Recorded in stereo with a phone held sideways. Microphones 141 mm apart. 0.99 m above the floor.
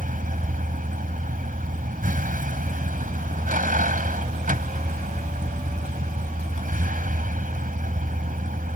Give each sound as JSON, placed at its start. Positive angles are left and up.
{"t": 0.0, "sound": "a vehicle", "side_deg": -85}